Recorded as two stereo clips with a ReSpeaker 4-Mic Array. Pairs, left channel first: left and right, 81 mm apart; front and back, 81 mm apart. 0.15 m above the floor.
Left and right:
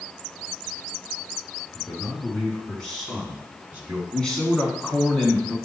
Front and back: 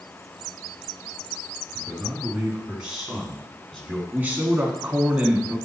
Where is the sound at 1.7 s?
130° left, 2.0 m; by 4.0 s 55° right, 1.7 m.